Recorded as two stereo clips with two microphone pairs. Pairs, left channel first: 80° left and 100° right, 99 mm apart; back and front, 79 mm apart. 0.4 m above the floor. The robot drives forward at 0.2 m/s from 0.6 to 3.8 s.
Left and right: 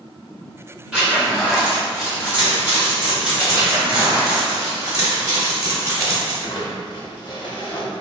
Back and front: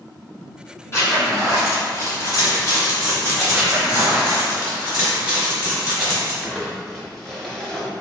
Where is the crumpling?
100° left, 0.7 m.